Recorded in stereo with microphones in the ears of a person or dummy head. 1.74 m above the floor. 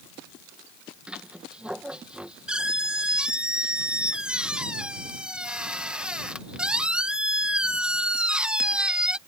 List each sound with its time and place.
1.1 s a squeak: 5° right (ahead or behind)